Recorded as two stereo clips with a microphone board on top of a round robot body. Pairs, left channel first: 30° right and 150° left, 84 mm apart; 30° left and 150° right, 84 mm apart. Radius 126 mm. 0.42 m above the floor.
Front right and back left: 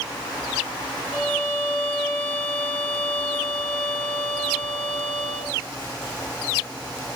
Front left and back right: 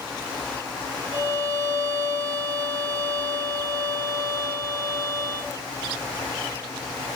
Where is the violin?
105° right, 1.1 m.